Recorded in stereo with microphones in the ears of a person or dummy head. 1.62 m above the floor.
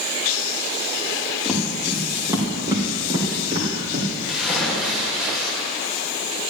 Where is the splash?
Centre (ahead or behind), 2.5 m.